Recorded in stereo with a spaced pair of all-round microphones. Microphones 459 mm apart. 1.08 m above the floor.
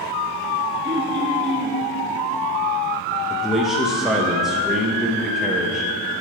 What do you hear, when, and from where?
0.8 s throat clearing: 20° right (ahead or behind), 1.5 m
3.3 s a man speaking: centre (ahead or behind), 0.8 m